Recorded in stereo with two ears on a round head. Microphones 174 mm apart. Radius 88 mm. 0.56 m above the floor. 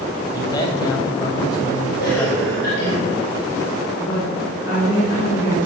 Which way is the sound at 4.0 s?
45° left (ahead or behind).